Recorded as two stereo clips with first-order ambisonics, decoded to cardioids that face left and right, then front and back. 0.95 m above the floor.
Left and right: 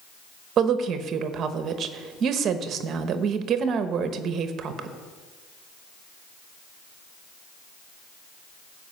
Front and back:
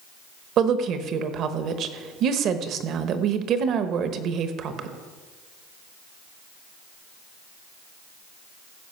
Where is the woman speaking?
140° right, 0.9 m.